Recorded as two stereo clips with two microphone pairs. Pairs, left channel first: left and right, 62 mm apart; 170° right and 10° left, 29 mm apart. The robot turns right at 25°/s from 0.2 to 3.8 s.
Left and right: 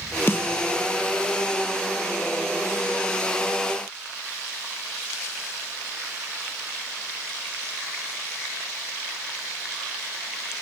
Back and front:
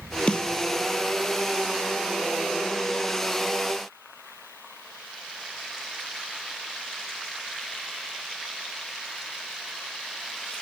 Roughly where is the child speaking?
No child speaking in this recording.